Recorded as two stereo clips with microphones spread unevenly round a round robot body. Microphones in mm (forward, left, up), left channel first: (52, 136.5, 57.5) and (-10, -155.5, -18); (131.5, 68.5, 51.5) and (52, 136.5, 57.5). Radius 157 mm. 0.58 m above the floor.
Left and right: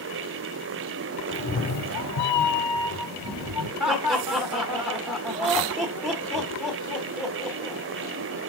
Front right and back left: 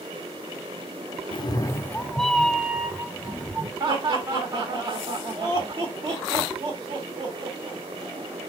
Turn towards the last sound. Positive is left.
turn(degrees=180)